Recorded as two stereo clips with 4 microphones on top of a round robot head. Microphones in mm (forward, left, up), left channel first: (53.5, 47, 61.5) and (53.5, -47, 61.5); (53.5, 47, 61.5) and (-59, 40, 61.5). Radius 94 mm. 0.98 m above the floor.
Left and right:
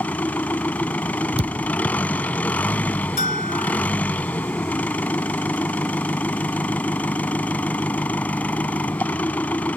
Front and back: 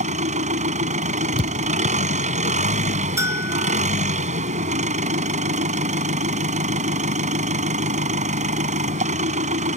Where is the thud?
125° right.